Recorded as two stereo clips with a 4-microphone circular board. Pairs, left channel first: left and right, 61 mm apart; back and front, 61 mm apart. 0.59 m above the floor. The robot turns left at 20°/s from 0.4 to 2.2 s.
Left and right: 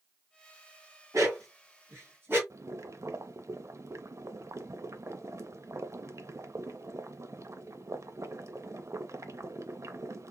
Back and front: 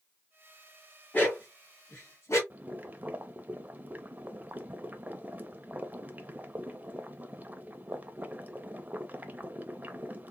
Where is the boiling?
60° right, 0.5 m.